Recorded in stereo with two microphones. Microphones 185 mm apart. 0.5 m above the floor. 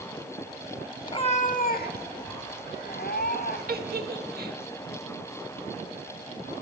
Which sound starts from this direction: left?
A cat meowing, at 1.1 s.